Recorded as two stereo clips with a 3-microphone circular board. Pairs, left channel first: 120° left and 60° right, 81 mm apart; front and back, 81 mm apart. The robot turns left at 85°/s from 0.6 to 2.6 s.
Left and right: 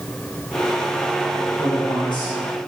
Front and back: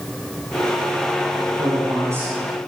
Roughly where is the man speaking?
Behind.